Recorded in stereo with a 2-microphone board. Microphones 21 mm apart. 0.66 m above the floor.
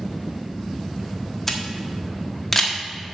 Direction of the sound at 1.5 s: 10° left (ahead or behind).